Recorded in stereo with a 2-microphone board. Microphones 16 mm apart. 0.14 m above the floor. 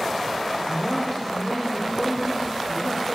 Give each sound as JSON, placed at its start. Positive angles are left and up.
{"t": 0.7, "sound": "a man speaking", "side_deg": 10, "distance_m": 6.5}